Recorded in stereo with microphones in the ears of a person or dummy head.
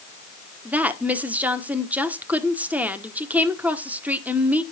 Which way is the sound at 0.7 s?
10° right (ahead or behind).